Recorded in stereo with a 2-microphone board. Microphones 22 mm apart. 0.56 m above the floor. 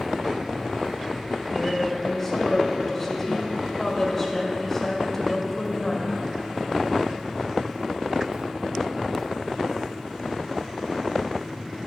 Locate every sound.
1.5 s a woman speaking: 10° left (ahead or behind), 1.9 m